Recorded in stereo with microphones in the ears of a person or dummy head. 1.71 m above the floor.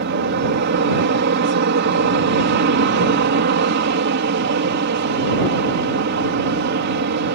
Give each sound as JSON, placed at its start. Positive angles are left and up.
{"t": 0.0, "sound": "an aircraft", "side_deg": -55}